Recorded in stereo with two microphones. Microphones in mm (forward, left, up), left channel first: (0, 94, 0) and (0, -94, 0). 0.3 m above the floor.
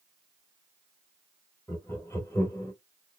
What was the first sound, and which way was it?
Laughter, 15° left (ahead or behind).